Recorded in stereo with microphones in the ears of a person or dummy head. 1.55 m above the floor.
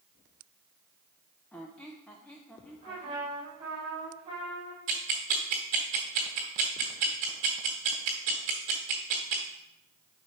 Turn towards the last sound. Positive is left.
turn(degrees=-35)  # may be behind; listen again after turning